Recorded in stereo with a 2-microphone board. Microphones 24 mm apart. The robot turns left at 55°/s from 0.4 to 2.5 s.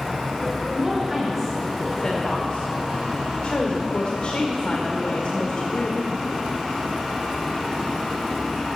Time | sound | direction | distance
0.7 | a woman speaking | 135° right | 1.6 m